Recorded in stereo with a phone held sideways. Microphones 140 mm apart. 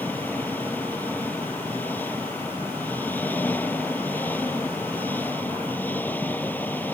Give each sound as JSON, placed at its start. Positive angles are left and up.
{"t": 0.0, "sound": "an engine running", "side_deg": 15}